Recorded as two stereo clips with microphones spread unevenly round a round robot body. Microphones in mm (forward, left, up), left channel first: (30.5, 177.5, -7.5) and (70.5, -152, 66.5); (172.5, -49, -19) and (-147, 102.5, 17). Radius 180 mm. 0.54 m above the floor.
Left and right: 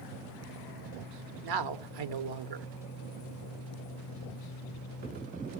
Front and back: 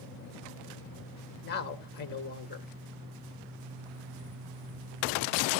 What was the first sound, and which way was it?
A man speaking, 80° right.